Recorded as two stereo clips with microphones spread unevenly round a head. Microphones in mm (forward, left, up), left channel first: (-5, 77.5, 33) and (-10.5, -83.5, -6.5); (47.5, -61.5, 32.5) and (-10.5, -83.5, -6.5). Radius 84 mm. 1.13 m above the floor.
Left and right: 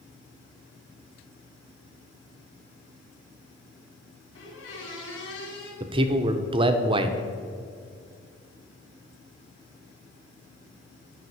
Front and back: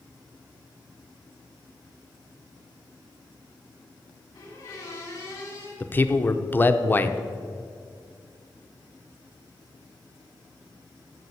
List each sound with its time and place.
4.3 s a squeak: 70° left, 2.5 m
5.8 s a man speaking: 65° right, 0.7 m